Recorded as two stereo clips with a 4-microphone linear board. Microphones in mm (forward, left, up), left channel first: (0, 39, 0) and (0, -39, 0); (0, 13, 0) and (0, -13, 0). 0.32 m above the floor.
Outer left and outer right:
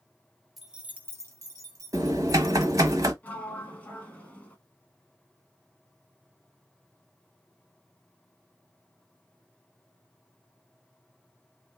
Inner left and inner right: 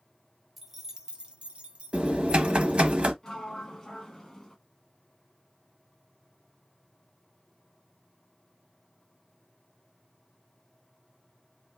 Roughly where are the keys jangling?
Centre.